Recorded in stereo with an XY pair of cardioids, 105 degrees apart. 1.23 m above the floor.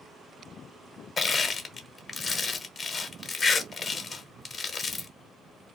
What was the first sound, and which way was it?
Crushing, 40° left.